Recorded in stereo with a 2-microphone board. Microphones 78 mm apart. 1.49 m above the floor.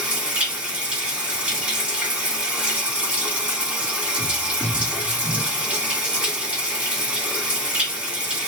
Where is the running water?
15° right (ahead or behind), 1.9 m.